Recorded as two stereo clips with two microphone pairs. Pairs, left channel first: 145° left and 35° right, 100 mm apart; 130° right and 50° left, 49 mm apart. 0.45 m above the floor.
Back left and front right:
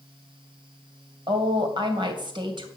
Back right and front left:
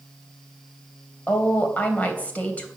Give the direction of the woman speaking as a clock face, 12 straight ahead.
2 o'clock.